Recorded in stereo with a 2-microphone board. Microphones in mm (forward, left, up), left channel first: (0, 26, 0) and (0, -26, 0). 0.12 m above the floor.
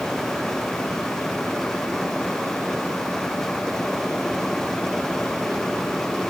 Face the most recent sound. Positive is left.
No sound to turn to.